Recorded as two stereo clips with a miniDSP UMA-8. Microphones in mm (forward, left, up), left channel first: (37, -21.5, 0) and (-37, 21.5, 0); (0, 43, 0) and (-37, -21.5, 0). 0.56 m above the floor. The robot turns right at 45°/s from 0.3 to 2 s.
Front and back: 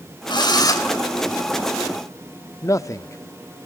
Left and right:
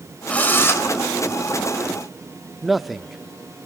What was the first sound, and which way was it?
A drill, 10° right.